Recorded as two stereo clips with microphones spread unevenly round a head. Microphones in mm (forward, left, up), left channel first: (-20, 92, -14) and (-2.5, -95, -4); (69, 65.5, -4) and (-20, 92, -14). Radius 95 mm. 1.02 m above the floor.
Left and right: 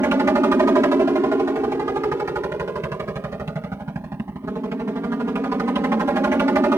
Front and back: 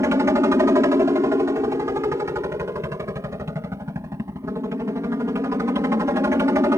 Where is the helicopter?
155° right.